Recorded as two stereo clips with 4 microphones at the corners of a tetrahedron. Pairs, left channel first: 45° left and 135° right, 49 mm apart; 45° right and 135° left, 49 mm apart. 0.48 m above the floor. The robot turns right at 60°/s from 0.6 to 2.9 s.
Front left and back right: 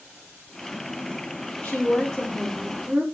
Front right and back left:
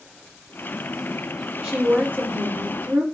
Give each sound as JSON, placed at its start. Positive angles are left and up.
{"t": 1.6, "sound": "a woman speaking", "azimuth_deg": 85, "distance_m": 1.4}